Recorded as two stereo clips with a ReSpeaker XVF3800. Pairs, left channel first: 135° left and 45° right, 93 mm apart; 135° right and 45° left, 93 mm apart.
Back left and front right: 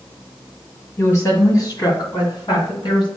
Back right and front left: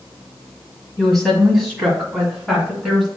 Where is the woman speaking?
140° left, 1.5 m; by 3.1 s 135° left, 2.5 m.